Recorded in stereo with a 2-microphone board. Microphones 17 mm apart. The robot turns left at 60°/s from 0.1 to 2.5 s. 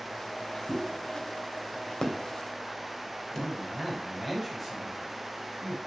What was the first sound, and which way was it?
A pop, 10° left (ahead or behind).